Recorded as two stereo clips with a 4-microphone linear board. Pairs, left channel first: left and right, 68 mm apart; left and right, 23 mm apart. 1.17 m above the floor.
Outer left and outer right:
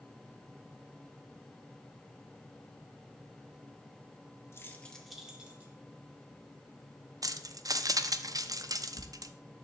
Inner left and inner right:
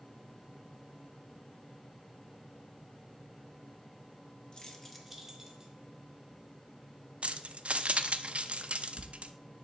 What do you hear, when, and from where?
4.5 s keys jangling: 40° left (ahead or behind), 1.1 m; by 5.7 s 25° right (ahead or behind), 1.8 m
7.2 s keys jangling: 60° right (ahead or behind), 0.5 m